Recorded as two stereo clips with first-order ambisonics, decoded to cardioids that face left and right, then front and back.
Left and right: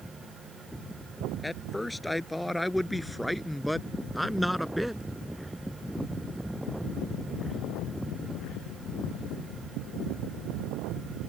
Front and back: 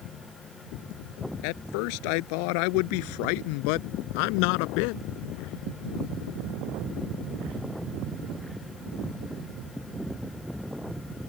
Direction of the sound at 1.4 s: 10° left.